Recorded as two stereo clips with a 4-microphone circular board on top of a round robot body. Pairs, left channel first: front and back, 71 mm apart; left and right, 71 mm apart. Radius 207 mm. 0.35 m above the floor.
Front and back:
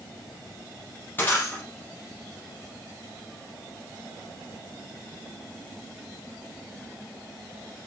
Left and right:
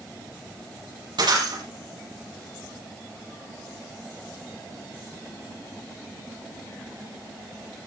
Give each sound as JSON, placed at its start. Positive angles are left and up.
{"t": 1.2, "sound": "breaking glass", "azimuth_deg": -65, "distance_m": 7.5}